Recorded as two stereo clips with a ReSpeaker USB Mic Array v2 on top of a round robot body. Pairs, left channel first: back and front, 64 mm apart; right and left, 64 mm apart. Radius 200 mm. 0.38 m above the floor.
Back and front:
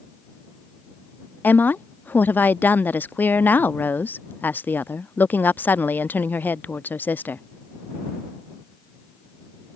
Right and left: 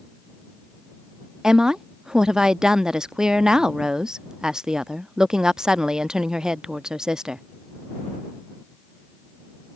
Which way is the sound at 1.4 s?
160° left.